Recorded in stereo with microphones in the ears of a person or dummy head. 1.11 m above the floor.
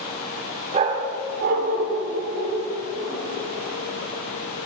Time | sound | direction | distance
0.7 | a dog barking | 30° right (ahead or behind) | 0.9 m